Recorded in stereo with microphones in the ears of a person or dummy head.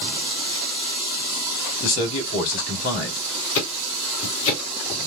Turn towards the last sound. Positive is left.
turn(degrees=70)  # may be behind; listen again after turning